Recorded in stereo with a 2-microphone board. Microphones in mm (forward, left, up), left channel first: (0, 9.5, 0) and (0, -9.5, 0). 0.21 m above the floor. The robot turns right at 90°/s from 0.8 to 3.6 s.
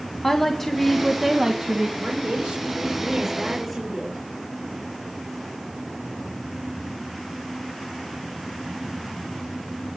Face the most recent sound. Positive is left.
turn(degrees=10)